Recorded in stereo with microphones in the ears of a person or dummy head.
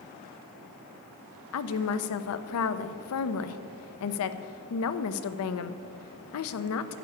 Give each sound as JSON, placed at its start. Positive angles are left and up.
{"t": 1.5, "sound": "a woman speaking", "side_deg": 75, "distance_m": 0.6}